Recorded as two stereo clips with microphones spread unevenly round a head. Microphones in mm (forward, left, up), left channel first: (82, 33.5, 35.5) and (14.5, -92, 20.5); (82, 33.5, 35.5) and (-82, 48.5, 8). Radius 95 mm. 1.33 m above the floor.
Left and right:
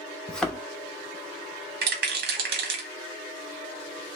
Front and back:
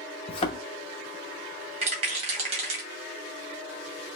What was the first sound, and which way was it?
A thud, 10° right.